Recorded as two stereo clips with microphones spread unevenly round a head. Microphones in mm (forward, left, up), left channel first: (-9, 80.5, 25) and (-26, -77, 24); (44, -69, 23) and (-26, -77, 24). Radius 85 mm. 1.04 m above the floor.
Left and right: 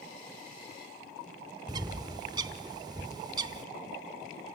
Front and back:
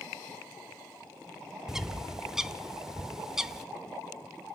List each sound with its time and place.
1.7 s a bird: 100° right, 0.7 m